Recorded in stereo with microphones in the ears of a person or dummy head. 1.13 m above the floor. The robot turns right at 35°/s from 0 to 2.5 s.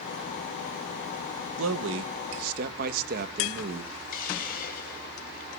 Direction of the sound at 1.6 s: 85° right.